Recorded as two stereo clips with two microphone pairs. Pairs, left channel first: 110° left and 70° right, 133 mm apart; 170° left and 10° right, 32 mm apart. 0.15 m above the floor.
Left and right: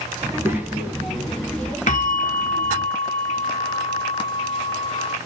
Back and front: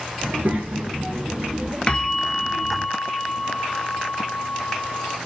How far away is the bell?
About 0.6 m.